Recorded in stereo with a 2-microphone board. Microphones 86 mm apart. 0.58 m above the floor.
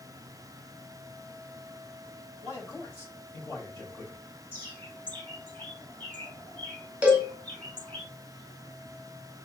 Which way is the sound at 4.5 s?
25° left (ahead or behind).